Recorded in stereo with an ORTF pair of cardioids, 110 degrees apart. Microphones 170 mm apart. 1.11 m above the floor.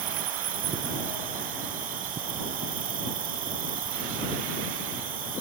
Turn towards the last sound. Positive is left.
turn(degrees=-55)